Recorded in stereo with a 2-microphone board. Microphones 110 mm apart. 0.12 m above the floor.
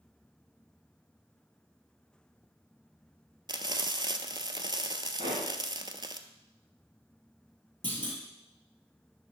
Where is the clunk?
45° right (ahead or behind), 3 m.